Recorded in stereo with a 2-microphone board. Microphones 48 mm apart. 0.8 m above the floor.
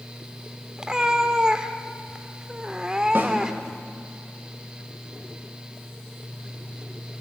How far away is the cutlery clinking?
No cutlery clinking in this recording.